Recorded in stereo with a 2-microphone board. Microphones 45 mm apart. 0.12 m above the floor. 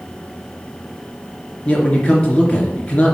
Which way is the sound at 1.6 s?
30° left (ahead or behind).